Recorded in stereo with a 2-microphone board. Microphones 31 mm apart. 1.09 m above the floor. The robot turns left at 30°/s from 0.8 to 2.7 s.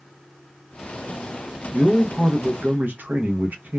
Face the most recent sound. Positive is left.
turn(degrees=-85)